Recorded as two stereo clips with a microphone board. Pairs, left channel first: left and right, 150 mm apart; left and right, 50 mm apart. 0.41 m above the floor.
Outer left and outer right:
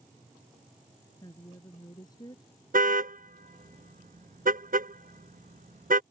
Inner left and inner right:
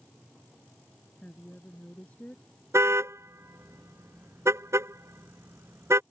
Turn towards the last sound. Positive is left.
turn(degrees=-85)